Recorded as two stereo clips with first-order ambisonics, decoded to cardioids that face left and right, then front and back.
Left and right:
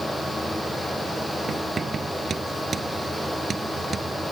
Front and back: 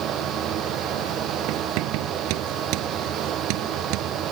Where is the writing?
160° right.